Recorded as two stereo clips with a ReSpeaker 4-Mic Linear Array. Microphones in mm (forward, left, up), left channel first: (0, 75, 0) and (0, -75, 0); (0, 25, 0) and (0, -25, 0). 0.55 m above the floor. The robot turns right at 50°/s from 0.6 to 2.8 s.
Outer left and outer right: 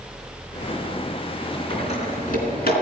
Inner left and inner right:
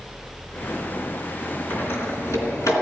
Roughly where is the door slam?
Left.